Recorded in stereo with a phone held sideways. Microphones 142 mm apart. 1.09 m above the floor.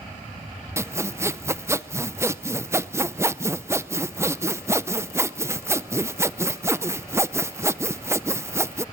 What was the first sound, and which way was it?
Sawing, 20° right (ahead or behind).